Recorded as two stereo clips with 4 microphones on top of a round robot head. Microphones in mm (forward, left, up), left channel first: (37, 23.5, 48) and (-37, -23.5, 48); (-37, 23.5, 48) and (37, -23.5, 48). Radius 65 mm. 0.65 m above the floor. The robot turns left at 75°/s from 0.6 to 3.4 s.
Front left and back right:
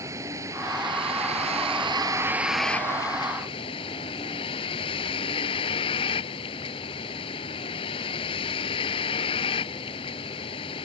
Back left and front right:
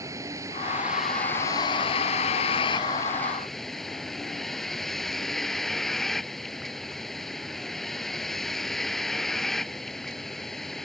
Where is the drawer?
No drawer in this recording.